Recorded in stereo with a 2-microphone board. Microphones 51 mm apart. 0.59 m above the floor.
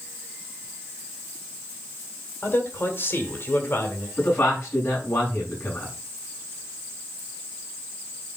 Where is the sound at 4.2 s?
45° left (ahead or behind), 6.5 m.